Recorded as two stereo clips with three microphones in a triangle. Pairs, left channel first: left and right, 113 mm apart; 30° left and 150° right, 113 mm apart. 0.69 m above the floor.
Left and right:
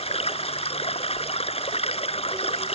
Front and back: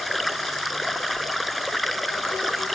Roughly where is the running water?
Behind left.